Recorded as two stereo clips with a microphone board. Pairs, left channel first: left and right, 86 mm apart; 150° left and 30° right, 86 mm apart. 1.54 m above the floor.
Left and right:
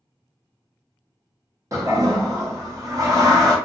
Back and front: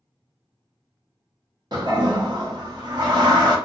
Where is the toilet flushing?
50° right, 0.7 m.